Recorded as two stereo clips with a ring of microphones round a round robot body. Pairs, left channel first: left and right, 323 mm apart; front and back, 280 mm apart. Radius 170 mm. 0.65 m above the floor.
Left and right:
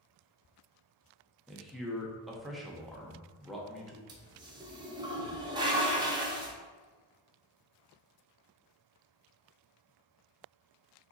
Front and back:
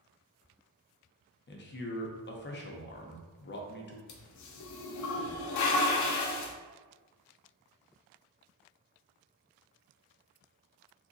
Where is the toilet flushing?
15° right, 0.5 m.